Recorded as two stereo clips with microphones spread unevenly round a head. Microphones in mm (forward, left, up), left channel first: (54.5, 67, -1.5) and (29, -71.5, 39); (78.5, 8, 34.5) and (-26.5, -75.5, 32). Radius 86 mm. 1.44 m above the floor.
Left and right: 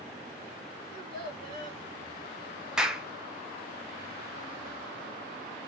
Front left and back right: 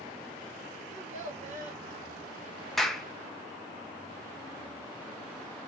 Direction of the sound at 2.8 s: 45° right.